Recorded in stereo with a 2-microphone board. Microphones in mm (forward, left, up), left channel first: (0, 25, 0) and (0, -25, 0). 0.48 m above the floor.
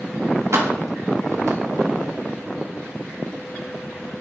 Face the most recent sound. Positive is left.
turn(degrees=-75)  # may be behind; listen again after turning